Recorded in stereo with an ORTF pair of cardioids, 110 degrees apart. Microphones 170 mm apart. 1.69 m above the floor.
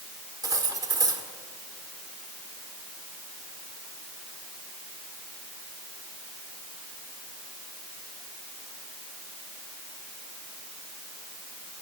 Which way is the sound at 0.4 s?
20° right.